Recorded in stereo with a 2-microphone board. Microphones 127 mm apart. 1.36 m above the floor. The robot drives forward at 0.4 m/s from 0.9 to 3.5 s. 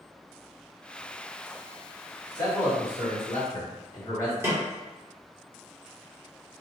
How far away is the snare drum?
About 0.9 m.